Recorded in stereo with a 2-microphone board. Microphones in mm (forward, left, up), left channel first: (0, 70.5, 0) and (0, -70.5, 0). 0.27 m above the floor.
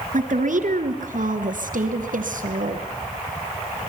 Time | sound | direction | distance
0.1 | a woman speaking | 65° right (ahead or behind) | 3 m